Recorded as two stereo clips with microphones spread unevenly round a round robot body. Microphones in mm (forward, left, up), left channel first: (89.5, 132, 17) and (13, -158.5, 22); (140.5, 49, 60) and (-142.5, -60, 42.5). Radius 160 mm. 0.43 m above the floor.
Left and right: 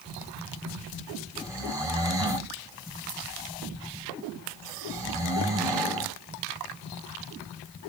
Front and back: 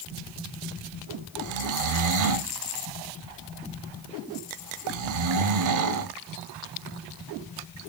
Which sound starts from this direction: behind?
Snoring, at 1.4 s.